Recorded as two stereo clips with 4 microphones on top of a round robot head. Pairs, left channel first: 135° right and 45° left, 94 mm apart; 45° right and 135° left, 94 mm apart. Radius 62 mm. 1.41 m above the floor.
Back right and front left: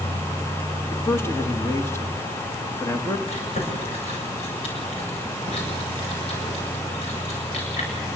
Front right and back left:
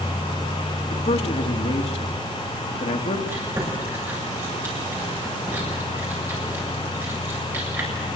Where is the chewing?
160° right, 7.5 m.